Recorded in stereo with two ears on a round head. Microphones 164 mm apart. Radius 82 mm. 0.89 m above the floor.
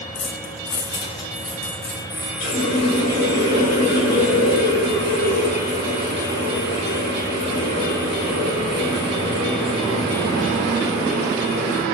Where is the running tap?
90° left, 2 m.